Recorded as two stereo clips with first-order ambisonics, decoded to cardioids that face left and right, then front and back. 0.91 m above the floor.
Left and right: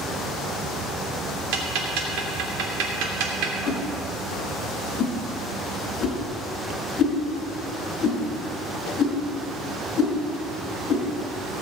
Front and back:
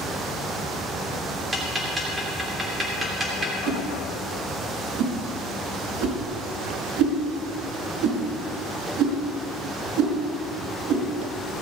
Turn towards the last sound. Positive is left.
turn(degrees=155)